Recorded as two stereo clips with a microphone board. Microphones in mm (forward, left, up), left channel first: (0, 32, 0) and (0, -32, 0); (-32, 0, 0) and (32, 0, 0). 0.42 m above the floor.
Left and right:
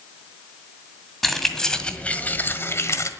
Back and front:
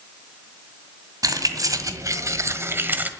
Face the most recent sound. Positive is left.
turn(degrees=60)